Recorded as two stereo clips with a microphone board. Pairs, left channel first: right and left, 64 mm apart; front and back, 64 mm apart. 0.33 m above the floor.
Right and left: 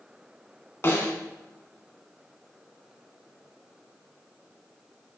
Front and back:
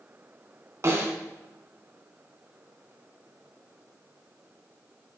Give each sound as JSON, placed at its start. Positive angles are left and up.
{"t": 0.8, "sound": "a snare drum", "azimuth_deg": -140, "distance_m": 1.8}